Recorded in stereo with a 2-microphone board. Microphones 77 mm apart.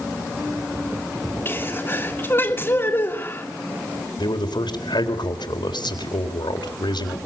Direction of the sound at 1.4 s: 35° left (ahead or behind).